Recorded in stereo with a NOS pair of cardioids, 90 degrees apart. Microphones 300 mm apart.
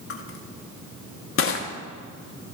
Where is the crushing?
45° left, 1.4 m.